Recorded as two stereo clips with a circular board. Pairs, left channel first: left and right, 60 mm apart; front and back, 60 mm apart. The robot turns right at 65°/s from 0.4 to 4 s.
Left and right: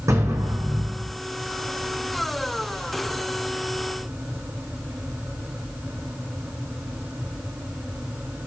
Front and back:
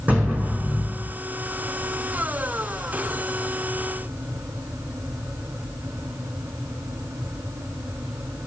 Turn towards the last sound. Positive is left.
turn(degrees=115)